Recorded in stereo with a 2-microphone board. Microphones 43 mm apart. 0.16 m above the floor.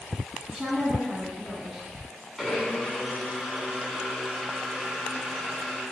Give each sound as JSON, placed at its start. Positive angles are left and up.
{"t": 0.5, "sound": "a woman speaking", "side_deg": -10, "distance_m": 1.1}
{"t": 2.4, "sound": "a blender", "side_deg": 5, "distance_m": 0.9}